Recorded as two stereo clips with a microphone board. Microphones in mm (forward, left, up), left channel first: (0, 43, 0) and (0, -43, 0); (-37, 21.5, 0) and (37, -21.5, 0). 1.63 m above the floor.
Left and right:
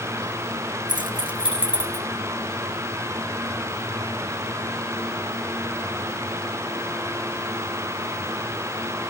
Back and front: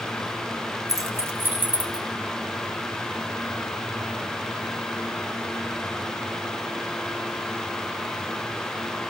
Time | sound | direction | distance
0.9 | keys jangling | 70° right | 1.0 m